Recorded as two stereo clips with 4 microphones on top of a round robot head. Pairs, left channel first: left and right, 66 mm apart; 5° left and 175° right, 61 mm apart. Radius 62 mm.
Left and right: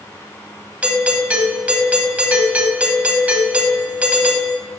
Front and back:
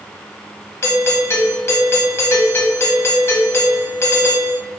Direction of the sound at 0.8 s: 30° right.